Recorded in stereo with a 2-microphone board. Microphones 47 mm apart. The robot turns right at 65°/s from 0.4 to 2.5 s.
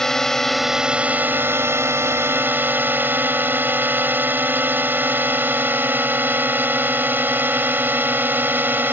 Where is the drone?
170° left; by 8.9 s 50° right.